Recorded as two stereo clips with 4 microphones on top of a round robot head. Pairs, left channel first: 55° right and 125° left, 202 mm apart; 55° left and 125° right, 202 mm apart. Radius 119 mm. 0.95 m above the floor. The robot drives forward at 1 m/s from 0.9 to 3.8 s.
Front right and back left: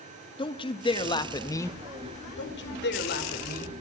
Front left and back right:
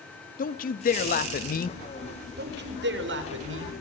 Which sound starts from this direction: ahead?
A man speaking, at 0.4 s.